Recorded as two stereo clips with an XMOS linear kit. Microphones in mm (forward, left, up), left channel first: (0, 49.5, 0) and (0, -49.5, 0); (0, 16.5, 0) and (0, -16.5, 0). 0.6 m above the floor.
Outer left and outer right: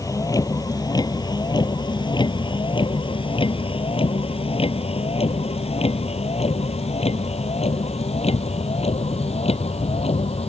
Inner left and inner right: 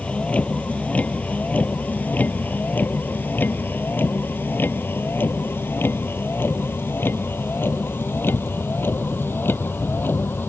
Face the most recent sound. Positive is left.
turn(degrees=80)